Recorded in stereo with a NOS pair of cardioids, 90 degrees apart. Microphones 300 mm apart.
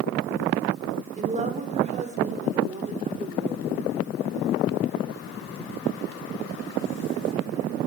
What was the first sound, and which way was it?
A woman speaking, 25° right.